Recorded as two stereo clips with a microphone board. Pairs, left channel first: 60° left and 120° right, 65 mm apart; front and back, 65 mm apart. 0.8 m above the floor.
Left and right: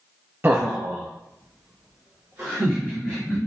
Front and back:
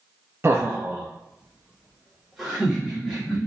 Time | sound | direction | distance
0.4 | laughter | 155° right | 0.5 m